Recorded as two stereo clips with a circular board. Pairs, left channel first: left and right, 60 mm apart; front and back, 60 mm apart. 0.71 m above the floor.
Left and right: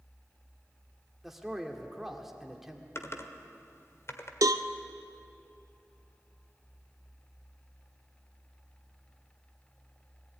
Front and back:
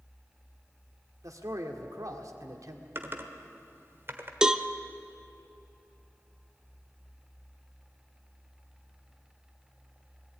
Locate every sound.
1.2 s a man speaking: 175° right, 1.9 m
3.0 s typing on a keyboard: 130° left, 1.3 m
4.4 s a cowbell: 100° right, 0.6 m